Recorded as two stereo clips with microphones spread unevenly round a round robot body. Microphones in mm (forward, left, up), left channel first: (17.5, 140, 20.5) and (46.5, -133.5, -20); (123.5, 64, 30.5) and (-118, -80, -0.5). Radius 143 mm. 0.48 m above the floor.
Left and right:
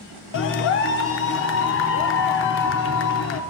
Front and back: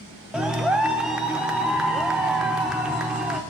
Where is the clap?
130° left, 0.6 m.